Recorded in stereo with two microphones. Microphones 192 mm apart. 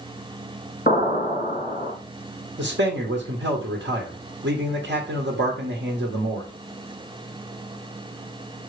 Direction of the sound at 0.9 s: 45° left (ahead or behind).